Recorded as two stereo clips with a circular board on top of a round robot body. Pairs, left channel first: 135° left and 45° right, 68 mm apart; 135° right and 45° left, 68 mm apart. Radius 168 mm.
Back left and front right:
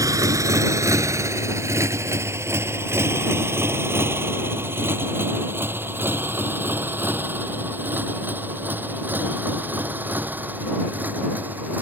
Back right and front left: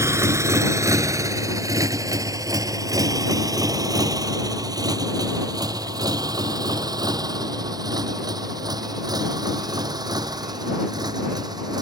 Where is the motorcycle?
5° right; by 11.8 s 20° left.